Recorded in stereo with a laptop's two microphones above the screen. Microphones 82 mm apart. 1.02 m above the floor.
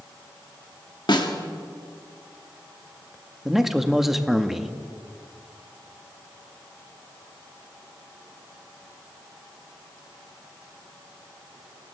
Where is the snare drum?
65° left (ahead or behind), 2.5 m.